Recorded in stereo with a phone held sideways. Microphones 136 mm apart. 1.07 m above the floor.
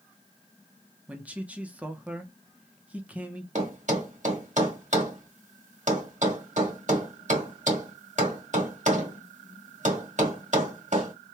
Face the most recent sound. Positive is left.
turn(degrees=-65)  # may be behind; listen again after turning